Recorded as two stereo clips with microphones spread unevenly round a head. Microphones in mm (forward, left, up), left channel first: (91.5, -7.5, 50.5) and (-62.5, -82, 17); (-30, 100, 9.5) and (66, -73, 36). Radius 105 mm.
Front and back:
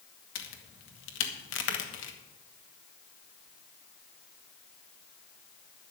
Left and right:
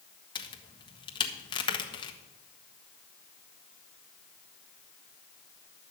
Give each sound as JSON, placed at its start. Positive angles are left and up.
{"t": 0.3, "sound": "a crack", "azimuth_deg": 55, "distance_m": 1.4}